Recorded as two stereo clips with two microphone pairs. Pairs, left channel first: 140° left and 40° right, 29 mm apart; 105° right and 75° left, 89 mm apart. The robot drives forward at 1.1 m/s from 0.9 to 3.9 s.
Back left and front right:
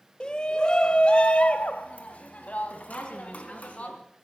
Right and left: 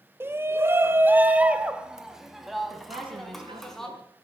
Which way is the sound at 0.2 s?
115° left.